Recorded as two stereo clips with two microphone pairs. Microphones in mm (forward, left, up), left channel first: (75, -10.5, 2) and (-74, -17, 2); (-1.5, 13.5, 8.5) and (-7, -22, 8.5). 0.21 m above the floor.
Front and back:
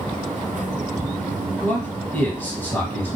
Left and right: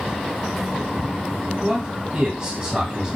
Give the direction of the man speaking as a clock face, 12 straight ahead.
2 o'clock.